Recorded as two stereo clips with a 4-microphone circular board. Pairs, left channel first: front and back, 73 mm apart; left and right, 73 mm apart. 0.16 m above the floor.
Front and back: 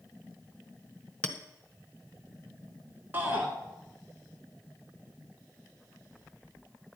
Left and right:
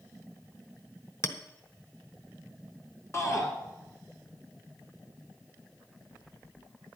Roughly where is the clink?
Left.